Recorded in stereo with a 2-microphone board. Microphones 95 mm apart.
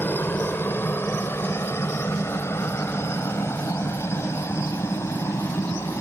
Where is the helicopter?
20° left (ahead or behind); by 6.0 s 30° left (ahead or behind).